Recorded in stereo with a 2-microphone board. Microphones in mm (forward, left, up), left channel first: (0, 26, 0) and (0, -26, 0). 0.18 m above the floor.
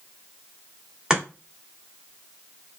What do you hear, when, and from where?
1.1 s chopping: 10° right (ahead or behind), 1.2 m